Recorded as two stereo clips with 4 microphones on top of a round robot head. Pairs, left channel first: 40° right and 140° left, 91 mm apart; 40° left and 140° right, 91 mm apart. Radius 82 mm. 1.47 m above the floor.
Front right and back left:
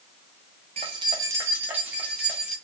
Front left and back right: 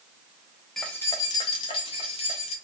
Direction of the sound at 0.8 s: 125° left.